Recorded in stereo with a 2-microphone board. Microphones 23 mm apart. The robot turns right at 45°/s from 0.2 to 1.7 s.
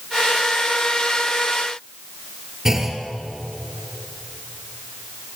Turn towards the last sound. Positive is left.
turn(degrees=-20)  # may be behind; listen again after turning